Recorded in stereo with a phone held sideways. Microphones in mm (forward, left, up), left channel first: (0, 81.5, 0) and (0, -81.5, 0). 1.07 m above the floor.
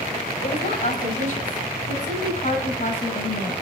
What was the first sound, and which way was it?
A woman speaking, 55° left (ahead or behind).